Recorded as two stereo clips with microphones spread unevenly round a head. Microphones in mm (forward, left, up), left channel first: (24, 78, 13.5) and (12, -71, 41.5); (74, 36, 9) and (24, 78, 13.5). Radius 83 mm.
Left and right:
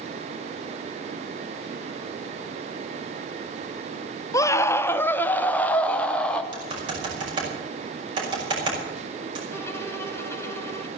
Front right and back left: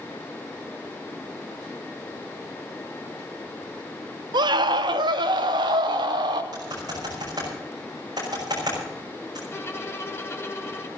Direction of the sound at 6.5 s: 155° right.